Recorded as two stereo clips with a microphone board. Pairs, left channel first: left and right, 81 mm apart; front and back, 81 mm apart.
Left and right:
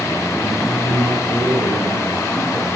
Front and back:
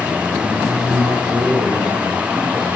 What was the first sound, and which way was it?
A man speaking, 120° right.